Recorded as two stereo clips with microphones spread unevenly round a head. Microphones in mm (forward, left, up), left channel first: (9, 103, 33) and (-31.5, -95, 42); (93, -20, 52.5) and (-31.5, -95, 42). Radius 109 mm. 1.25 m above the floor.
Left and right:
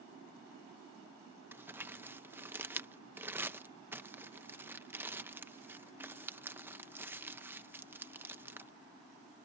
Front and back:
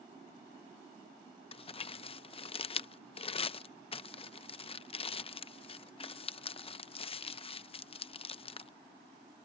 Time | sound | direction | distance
1.5 | crumpling | 20° right | ?